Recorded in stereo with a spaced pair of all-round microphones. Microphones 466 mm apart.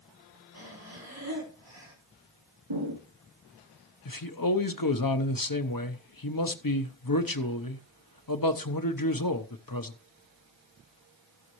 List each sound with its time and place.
0.5 s breathing: 50° right (ahead or behind), 3.5 m
2.7 s footsteps: 75° right (ahead or behind), 6 m
4.0 s a man speaking: 45° left (ahead or behind), 0.9 m